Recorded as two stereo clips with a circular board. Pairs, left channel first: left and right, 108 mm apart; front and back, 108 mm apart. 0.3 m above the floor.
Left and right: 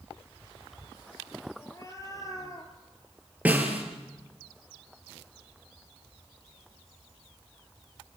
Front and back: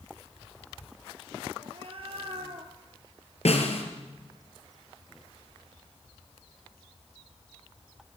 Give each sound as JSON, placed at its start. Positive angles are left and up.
{"t": 1.6, "sound": "a cat meowing", "azimuth_deg": 150, "distance_m": 3.0}
{"t": 3.5, "sound": "a snare drum", "azimuth_deg": -15, "distance_m": 4.0}